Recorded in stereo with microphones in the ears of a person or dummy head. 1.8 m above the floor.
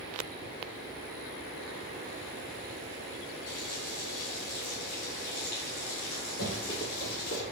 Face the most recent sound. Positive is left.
turn(degrees=45)  # may be behind; listen again after turning